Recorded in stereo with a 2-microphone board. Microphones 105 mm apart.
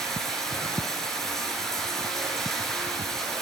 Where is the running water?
5° left (ahead or behind), 5.5 m.